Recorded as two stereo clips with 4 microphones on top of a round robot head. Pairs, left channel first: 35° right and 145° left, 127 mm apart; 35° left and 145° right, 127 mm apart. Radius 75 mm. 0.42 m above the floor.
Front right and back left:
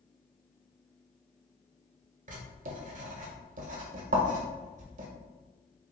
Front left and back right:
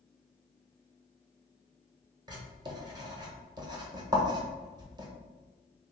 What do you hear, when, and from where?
2.3 s writing: 155° left, 1.0 m